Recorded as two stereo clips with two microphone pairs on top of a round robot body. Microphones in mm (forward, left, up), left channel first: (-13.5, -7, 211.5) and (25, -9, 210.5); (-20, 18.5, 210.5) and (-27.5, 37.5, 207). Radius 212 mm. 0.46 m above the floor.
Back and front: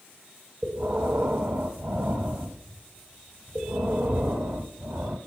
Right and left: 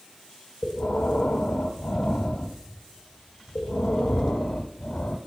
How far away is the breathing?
About 0.5 m.